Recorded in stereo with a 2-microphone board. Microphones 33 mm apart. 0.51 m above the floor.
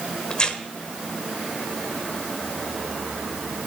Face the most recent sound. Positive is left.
turn(degrees=30)  # may be behind; listen again after turning